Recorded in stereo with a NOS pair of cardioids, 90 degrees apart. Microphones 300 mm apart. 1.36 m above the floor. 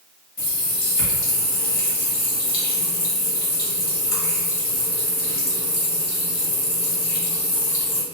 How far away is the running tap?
About 1.1 m.